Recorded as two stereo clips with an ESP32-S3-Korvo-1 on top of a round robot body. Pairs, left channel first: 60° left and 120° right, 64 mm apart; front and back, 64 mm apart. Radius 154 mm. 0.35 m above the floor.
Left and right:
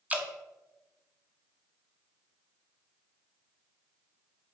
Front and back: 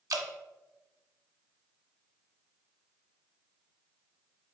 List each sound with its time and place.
0.1 s dripping: 175° left, 0.9 m